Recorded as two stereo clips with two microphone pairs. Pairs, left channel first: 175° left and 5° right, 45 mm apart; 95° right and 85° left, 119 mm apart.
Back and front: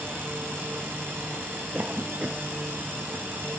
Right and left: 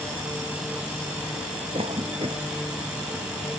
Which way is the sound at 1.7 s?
50° left.